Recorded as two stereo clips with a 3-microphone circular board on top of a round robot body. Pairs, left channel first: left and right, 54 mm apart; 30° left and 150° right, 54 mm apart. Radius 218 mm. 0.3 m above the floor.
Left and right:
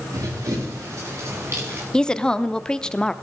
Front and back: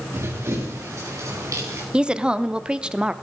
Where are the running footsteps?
105° right, 4.5 m; by 1.8 s 130° right, 5 m.